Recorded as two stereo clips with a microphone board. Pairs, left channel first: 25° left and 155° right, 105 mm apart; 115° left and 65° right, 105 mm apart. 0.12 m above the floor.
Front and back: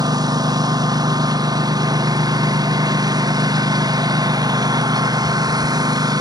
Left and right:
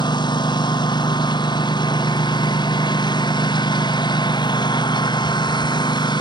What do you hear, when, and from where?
0.0 s a lawn mower: 155° left